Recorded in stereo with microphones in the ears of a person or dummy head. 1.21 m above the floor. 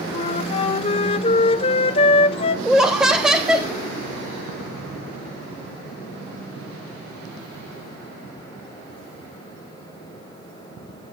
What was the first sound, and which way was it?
A flute, 35° left (ahead or behind).